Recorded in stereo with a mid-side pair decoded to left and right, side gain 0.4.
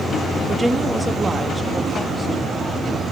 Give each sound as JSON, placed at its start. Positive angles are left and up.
{"t": 0.5, "sound": "a woman speaking", "azimuth_deg": -15, "distance_m": 3.0}